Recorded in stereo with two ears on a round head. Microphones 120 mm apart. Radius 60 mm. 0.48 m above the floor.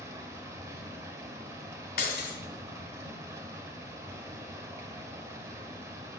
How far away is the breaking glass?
About 1.9 m.